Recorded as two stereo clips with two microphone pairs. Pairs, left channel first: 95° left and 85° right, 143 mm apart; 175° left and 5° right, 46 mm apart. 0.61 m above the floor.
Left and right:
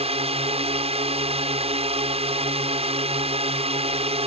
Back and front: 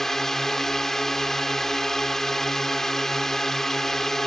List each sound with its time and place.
0.0 s a drone: 105° right